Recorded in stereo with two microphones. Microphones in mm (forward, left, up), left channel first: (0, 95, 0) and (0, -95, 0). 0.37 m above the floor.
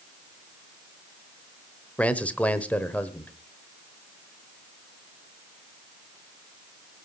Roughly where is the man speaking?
Centre.